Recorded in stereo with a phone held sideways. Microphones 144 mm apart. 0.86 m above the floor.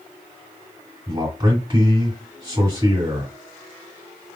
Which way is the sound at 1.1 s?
35° right (ahead or behind).